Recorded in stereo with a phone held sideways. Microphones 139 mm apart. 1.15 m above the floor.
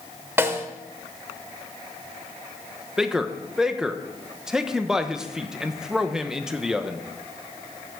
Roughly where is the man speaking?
Centre.